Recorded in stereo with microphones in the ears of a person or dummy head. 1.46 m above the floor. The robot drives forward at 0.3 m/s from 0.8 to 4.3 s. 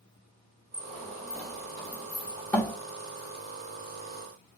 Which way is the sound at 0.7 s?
5° left (ahead or behind).